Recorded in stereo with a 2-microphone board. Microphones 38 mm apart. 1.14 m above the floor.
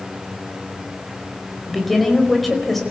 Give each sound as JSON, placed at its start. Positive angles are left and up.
{"t": 1.7, "sound": "a woman speaking", "side_deg": 0, "distance_m": 4.5}